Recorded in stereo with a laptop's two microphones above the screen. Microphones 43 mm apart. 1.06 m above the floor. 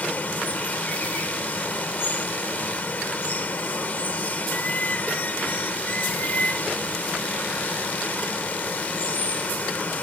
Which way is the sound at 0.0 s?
40° left (ahead or behind).